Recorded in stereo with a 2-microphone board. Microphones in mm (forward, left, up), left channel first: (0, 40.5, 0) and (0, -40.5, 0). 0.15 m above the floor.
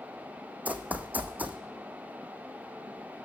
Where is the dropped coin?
No dropped coin in this recording.